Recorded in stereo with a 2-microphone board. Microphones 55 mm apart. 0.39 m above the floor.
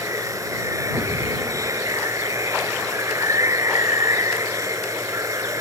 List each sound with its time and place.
0.0 s running water: 80° right